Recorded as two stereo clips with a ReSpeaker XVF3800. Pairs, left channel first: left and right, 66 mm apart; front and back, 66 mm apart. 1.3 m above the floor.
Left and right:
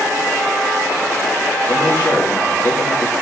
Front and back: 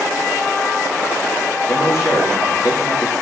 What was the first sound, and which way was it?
A man speaking, 35° left.